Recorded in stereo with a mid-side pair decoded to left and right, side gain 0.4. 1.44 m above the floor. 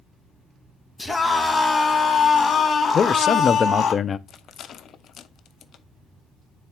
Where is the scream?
15° left, 2.5 m; by 3.9 s 60° left, 2.5 m.